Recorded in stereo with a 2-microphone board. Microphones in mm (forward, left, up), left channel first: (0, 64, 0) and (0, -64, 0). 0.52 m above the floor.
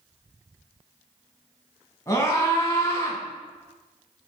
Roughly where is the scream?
Left.